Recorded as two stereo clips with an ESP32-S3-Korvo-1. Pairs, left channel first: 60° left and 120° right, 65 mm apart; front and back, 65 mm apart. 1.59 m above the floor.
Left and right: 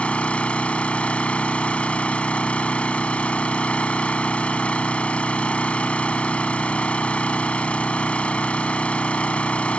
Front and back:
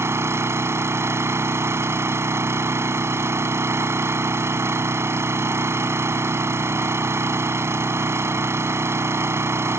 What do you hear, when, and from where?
0.0 s an engine running: 130° left